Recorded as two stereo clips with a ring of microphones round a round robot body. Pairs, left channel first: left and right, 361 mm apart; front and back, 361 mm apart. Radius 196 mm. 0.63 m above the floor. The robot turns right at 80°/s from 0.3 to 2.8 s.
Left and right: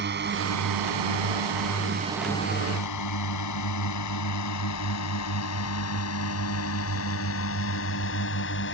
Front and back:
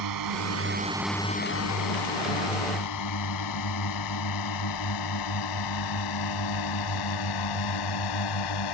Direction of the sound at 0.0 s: 150° right.